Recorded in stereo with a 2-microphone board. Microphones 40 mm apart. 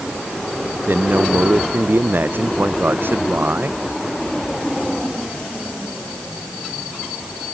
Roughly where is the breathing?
I don't hear breathing.